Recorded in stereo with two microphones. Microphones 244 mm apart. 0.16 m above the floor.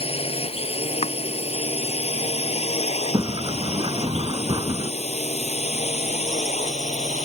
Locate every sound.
0.0 s a drone: 25° left (ahead or behind); by 7.2 s 30° left (ahead or behind)
1.0 s chopping: 25° left (ahead or behind)
3.1 s a sliding door: 20° right (ahead or behind)